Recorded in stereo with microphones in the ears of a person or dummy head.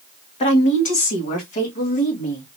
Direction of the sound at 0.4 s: 35° left (ahead or behind).